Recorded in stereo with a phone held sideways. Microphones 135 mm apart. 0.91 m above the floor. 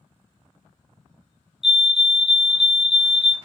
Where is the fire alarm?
Centre (ahead or behind), 1.2 m.